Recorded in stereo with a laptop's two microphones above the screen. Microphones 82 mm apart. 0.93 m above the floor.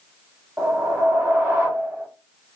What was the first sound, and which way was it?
A whoosh, 25° right (ahead or behind).